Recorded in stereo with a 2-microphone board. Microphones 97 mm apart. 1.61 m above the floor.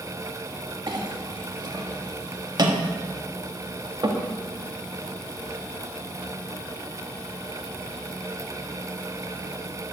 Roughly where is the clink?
Right.